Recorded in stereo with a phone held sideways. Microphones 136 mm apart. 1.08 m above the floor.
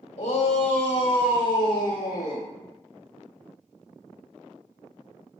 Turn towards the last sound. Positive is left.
turn(degrees=30)  # may be behind; listen again after turning